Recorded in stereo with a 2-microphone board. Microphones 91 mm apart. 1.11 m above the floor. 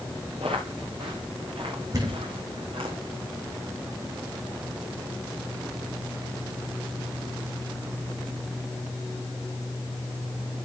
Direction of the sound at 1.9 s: 45° right (ahead or behind).